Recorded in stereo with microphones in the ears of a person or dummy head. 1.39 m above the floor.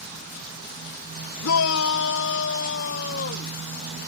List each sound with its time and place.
1.4 s a shout: 75° left (ahead or behind); by 3.6 s 55° left (ahead or behind)